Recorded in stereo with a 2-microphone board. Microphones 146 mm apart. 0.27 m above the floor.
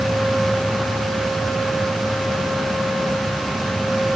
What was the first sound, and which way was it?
Only background noise.